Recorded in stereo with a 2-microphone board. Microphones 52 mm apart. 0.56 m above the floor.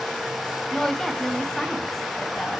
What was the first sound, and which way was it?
A woman speaking, 10° left (ahead or behind).